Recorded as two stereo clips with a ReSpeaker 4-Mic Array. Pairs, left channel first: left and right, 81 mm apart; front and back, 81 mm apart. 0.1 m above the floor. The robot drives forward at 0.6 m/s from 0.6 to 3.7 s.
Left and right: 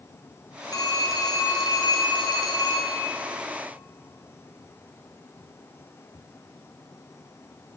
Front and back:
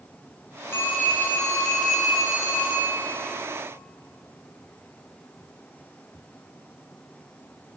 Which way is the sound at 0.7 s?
60° left.